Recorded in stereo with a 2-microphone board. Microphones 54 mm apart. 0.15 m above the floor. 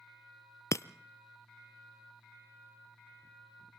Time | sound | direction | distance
0.7 | breaking glass | 70° left (ahead or behind) | 0.6 m